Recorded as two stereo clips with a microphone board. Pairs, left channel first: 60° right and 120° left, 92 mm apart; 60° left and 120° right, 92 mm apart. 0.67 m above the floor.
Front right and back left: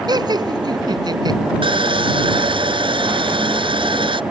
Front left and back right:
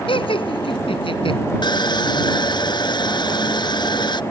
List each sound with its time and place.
0.1 s laughter: 80° left
1.6 s sawing: 95° left